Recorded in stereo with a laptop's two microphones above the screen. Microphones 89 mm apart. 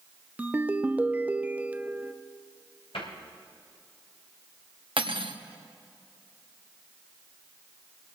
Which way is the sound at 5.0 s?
75° right (ahead or behind).